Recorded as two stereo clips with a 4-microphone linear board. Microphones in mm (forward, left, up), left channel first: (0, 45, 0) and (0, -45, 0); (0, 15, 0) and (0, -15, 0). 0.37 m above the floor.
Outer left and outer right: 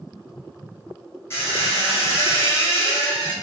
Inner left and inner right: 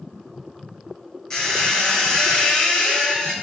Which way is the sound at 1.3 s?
30° left (ahead or behind).